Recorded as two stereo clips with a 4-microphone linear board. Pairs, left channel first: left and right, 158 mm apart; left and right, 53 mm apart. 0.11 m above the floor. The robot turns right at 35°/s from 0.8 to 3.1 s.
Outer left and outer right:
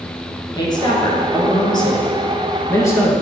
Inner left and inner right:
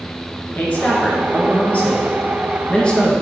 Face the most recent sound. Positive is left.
turn(degrees=15)  # may be behind; listen again after turning